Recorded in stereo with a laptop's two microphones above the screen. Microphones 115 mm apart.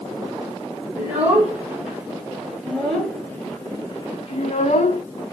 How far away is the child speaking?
About 2.5 m.